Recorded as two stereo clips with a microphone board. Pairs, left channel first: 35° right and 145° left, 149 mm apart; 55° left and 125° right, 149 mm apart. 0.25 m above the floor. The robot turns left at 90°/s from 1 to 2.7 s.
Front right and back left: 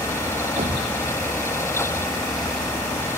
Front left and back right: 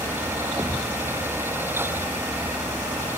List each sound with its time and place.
0.6 s a thud: 170° left; by 3.2 s 15° left